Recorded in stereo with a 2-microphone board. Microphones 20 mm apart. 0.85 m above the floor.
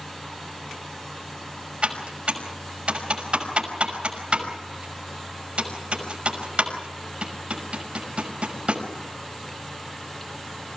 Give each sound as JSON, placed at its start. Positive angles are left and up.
{"t": 1.8, "sound": "typing on a keyboard", "side_deg": -70, "distance_m": 5.5}